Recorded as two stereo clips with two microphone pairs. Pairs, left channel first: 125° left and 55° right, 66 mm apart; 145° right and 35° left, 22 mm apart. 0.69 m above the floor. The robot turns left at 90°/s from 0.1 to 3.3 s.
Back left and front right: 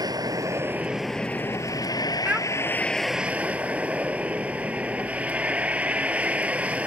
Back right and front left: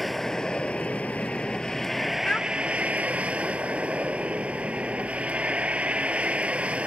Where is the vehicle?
60° right; by 6.9 s 15° left.